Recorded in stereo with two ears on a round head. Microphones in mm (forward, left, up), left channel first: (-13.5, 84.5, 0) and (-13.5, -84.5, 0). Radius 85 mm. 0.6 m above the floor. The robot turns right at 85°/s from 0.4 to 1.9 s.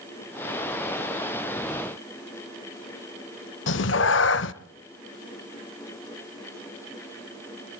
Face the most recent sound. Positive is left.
turn(degrees=65)  # may be behind; listen again after turning